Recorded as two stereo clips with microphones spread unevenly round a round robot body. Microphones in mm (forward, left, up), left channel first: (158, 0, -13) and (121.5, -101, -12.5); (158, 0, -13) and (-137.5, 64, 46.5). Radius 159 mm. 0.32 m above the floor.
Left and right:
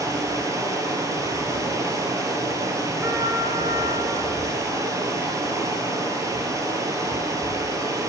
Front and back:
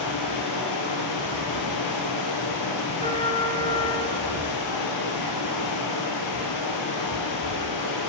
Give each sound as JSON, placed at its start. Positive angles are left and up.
{"t": 0.0, "sound": "running water", "azimuth_deg": -50, "distance_m": 1.4}
{"t": 3.0, "sound": "a trumpet", "azimuth_deg": -120, "distance_m": 0.9}